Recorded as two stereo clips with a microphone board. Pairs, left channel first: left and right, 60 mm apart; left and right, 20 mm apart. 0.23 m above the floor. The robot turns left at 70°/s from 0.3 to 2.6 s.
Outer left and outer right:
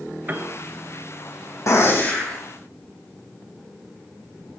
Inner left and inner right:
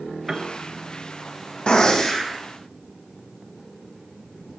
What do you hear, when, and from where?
0.3 s a piano: 35° right (ahead or behind), 0.8 m; by 0.5 s 50° right (ahead or behind), 0.8 m
1.7 s a gunshot: 60° left, 3 m; by 2.4 s 10° left, 3 m